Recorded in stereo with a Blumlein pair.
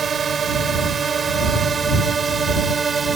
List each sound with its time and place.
0.0 s a drone: 20° right; by 3.2 s 15° right